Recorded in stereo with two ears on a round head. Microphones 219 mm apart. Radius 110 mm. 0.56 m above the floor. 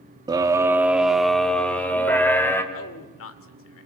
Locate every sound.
0.3 s a scream: 15° right (ahead or behind), 1.2 m; by 2.6 s 10° left (ahead or behind), 3 m
2.7 s a man speaking: 60° left (ahead or behind), 1.9 m